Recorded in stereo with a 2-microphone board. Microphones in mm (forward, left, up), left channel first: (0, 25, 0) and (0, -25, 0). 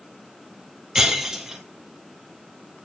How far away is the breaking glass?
About 2.0 m.